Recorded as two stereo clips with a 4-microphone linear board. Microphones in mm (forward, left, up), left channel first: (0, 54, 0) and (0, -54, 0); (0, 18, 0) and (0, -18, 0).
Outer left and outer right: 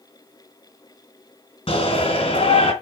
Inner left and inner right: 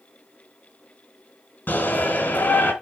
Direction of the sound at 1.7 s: 65° left (ahead or behind).